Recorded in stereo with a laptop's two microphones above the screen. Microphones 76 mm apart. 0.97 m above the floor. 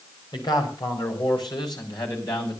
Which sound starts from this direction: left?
A man speaking, at 0.3 s.